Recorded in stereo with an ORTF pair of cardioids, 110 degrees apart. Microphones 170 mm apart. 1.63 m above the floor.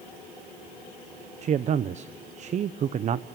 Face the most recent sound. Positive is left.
turn(degrees=-45)